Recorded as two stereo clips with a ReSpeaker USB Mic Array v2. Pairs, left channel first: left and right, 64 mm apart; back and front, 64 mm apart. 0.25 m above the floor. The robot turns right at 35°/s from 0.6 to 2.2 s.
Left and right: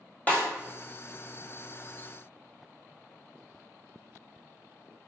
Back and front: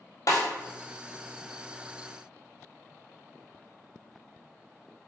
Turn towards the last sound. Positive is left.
turn(degrees=-150)